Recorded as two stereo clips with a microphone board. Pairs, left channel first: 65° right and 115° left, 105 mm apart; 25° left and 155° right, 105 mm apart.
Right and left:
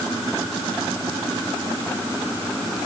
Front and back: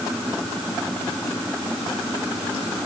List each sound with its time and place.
Only background noise.